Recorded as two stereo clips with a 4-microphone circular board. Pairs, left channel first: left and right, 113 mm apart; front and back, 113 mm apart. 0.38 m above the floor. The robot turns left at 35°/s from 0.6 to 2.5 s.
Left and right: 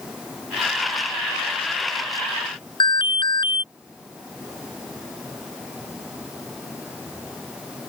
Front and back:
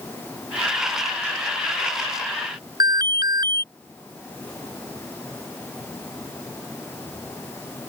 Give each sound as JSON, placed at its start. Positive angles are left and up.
{"t": 2.8, "sound": "an alarm", "azimuth_deg": 130}